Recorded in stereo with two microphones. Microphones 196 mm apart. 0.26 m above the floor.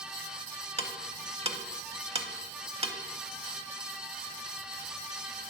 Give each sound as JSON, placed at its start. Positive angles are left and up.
{"t": 0.8, "sound": "ticking", "side_deg": -30, "distance_m": 0.6}